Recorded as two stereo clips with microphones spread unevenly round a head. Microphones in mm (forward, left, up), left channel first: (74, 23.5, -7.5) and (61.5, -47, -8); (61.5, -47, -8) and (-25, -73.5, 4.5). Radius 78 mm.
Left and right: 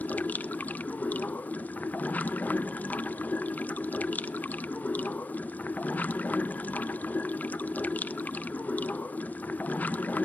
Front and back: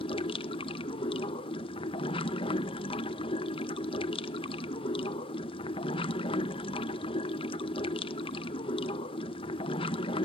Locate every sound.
0.0 s running water: 10° left, 0.8 m